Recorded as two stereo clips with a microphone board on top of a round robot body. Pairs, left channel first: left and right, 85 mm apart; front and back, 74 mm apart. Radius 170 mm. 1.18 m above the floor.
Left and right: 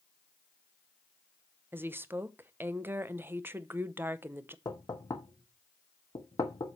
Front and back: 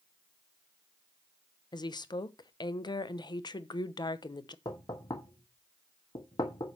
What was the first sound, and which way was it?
A woman speaking, 25° right.